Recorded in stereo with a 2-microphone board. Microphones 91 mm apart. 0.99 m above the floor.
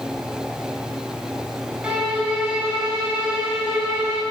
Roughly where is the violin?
Centre.